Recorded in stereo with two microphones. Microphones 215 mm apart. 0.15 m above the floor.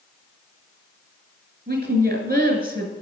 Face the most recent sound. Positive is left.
turn(degrees=-45)  # may be behind; listen again after turning